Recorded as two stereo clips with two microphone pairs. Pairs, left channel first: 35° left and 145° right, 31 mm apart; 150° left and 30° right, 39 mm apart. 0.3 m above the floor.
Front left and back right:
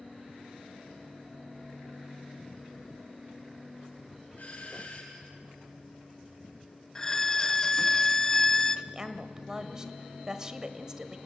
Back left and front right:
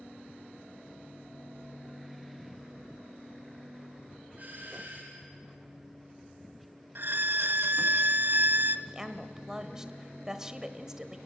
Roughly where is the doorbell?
Ahead.